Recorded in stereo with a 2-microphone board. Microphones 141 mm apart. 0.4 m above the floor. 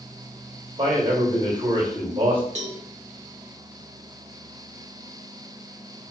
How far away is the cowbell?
About 0.8 m.